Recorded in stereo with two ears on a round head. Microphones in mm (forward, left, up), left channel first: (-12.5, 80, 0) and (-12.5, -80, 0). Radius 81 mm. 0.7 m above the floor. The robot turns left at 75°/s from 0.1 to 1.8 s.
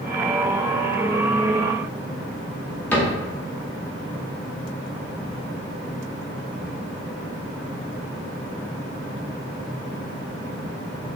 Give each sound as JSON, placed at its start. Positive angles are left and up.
{"t": 2.9, "sound": "a cupboard door", "side_deg": 10, "distance_m": 0.7}